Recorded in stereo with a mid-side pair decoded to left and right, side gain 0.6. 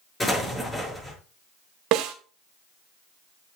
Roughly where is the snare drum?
Ahead right.